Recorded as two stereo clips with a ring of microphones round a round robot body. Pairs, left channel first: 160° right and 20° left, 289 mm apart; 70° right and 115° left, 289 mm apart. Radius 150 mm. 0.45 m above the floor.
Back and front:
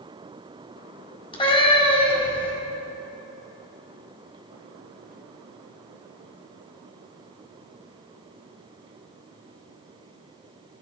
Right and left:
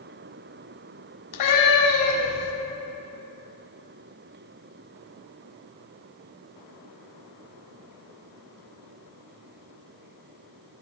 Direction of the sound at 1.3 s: 85° right.